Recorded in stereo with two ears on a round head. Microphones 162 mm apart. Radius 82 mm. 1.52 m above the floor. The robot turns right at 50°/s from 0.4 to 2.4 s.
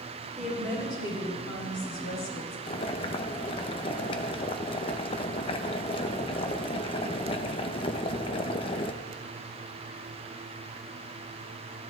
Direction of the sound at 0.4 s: Straight ahead.